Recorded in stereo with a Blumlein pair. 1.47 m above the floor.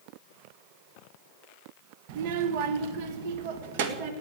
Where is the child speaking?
45° right, 1.1 m; by 4.1 s 50° right, 2 m.